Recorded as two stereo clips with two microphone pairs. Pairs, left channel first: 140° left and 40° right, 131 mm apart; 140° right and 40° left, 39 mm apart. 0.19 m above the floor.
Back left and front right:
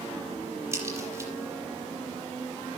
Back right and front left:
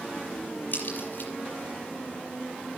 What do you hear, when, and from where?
0.7 s a crack: 105° right, 6 m